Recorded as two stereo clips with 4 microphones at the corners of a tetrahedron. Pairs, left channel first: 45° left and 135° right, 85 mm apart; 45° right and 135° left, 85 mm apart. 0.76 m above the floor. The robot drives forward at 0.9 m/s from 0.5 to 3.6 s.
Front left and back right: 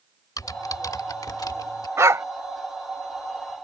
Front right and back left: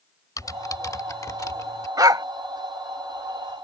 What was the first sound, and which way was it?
Typing on a keyboard, straight ahead.